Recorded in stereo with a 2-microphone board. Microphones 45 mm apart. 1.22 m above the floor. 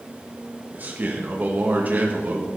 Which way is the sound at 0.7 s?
40° right (ahead or behind).